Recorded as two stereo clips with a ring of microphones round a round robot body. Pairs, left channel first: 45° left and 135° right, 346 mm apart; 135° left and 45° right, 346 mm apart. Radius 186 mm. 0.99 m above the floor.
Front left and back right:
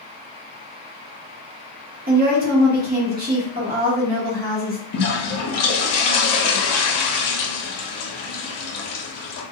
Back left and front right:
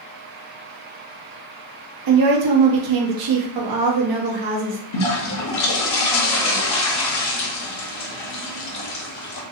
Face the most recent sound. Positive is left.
turn(degrees=90)